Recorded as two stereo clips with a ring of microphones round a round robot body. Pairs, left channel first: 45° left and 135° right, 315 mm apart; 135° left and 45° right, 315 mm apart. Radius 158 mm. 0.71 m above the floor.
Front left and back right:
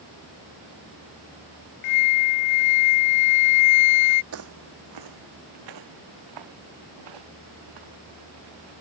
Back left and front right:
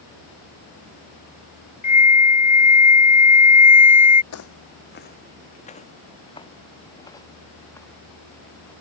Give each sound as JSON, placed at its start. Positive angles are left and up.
{"t": 1.8, "sound": "a flute", "azimuth_deg": 65}
{"t": 4.3, "sound": "footsteps", "azimuth_deg": 180}